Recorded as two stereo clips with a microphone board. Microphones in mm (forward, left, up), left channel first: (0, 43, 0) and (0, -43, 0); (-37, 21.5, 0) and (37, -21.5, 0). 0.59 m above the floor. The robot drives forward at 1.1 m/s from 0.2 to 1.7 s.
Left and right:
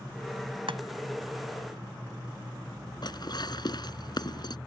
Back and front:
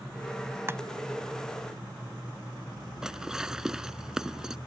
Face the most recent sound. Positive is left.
turn(degrees=55)